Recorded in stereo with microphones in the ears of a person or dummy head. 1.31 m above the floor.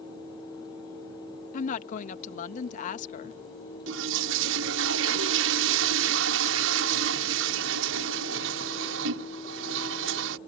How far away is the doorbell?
No doorbell in this recording.